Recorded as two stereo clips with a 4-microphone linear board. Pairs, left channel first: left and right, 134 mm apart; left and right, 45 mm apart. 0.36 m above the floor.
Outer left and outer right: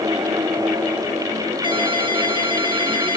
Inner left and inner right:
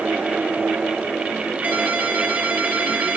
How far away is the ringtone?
About 2.5 m.